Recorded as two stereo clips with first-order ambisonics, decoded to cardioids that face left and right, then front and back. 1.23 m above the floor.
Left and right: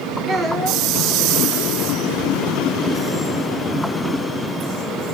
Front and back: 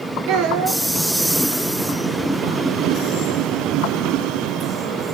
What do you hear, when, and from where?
0.3 s a child speaking: 155° right, 0.7 m